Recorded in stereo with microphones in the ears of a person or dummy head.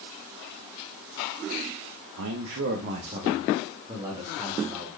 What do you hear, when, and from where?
2.2 s a man speaking: 70° right (ahead or behind), 0.6 m; by 4.9 s 10° right (ahead or behind), 1.7 m